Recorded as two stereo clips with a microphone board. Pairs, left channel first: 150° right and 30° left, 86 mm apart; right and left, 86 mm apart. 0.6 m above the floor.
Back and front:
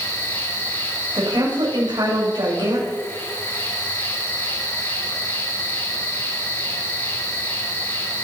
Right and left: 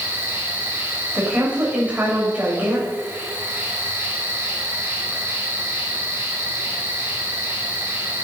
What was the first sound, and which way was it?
An insect, 150° left.